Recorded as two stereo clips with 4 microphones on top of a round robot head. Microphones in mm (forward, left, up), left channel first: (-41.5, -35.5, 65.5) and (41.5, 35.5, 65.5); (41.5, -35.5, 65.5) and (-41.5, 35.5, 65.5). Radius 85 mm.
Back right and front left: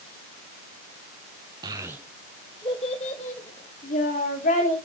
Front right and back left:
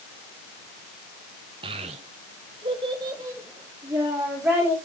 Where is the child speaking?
95° left, 0.8 m; by 4.8 s 140° right, 1.9 m.